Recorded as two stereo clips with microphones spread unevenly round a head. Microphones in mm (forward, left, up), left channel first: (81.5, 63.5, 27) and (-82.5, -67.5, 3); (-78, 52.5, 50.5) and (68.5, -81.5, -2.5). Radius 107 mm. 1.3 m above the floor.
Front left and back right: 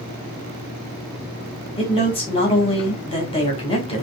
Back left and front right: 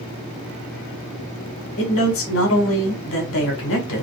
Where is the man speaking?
105° left, 2 m.